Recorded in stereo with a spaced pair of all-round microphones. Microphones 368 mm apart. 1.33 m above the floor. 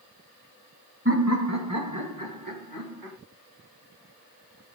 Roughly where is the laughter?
Right.